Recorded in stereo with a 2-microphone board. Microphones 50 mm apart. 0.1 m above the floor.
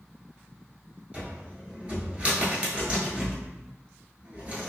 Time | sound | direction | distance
1.1 | a cupboard door | 25° right (ahead or behind) | 0.9 m